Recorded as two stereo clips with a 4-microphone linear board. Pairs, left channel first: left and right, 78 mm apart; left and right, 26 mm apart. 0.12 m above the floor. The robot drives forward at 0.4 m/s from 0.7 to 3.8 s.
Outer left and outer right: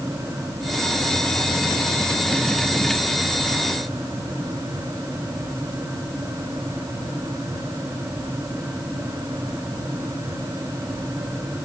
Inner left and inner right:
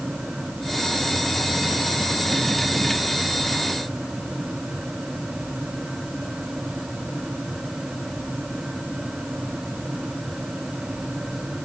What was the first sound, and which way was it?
Only background noise.